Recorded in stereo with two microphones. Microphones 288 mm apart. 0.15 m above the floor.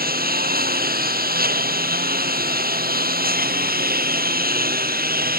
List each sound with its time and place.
0.0 s a lawn mower: 30° right (ahead or behind)